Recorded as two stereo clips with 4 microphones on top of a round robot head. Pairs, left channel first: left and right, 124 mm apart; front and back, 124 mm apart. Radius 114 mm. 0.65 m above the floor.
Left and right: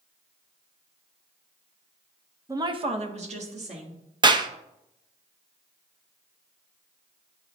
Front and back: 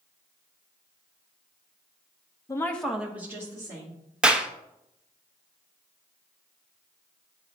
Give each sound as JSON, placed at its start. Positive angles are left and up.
{"t": 2.5, "sound": "a woman speaking", "azimuth_deg": -40, "distance_m": 0.7}
{"t": 4.2, "sound": "a clap", "azimuth_deg": -100, "distance_m": 0.7}